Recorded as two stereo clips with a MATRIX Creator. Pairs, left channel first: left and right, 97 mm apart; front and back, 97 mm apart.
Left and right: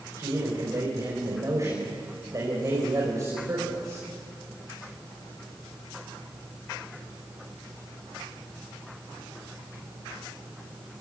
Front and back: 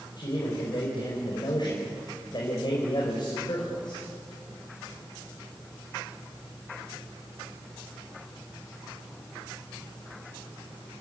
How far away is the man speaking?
About 4.5 m.